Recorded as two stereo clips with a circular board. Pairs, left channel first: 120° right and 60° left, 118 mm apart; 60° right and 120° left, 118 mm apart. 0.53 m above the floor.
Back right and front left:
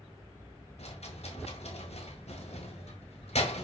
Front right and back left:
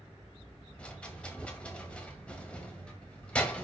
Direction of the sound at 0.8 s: 140° right.